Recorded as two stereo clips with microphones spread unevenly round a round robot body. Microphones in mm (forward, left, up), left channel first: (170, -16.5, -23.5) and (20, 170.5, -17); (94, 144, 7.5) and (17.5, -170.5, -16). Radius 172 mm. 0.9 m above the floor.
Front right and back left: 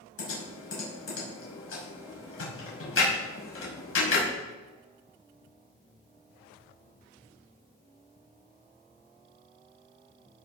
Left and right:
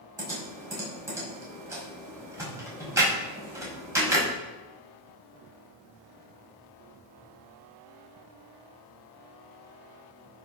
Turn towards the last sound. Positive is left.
turn(degrees=-20)